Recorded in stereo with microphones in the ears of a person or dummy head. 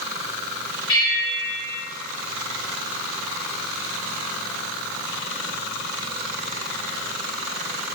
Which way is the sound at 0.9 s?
65° left (ahead or behind).